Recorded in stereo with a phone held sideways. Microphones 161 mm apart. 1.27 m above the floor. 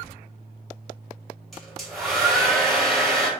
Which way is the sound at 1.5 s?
Centre (ahead or behind).